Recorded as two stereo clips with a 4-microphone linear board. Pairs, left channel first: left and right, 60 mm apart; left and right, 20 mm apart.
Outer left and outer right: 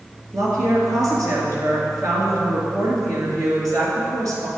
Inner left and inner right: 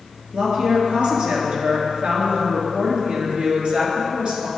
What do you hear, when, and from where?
0.3 s a woman speaking: 65° right (ahead or behind), 2.5 m